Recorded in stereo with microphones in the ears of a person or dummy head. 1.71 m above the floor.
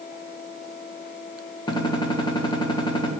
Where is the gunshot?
25° left (ahead or behind), 1.4 m.